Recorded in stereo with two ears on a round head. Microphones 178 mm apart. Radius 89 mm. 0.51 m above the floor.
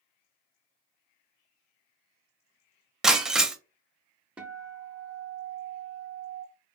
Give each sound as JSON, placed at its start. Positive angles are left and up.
{"t": 3.0, "sound": "breaking glass", "side_deg": -5, "distance_m": 0.5}
{"t": 4.4, "sound": "a guitar", "side_deg": -5, "distance_m": 0.7}